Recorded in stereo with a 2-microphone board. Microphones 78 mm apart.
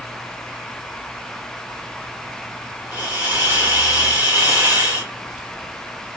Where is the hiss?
25° right (ahead or behind), 1.8 m.